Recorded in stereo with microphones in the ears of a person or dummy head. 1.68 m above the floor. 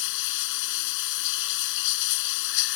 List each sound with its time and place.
0.0 s running water: 65° left (ahead or behind)